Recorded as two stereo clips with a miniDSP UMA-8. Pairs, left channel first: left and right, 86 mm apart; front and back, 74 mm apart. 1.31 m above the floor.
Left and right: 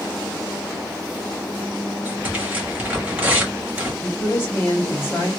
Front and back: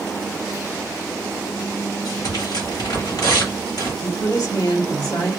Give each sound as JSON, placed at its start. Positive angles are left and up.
{"t": 2.0, "sound": "tearing paper", "azimuth_deg": -20, "distance_m": 2.0}
{"t": 4.0, "sound": "a woman speaking", "azimuth_deg": 25, "distance_m": 1.4}